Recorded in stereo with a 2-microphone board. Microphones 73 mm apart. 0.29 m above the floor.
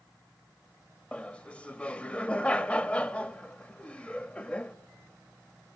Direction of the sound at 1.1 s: 15° left (ahead or behind).